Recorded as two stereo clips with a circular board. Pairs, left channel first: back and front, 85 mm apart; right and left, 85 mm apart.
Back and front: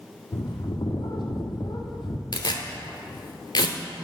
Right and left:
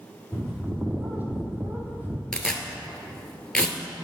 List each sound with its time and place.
0.3 s a bird: 155° left, 1.0 m
2.3 s tearing paper: 170° right, 0.8 m